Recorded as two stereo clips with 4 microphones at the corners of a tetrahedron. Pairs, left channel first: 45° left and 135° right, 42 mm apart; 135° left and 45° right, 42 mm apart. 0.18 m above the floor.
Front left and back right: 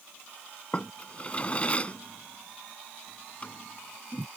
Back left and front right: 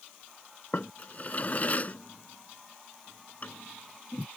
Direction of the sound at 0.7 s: 95° left.